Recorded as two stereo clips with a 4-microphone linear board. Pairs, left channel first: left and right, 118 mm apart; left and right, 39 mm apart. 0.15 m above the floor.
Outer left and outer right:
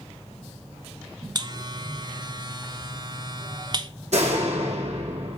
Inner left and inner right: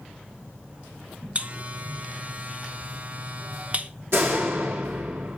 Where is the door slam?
70° right (ahead or behind), 4.5 m.